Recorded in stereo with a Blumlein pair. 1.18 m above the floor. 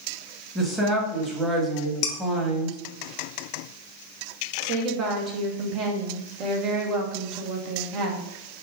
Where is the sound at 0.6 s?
10° right, 1.3 m.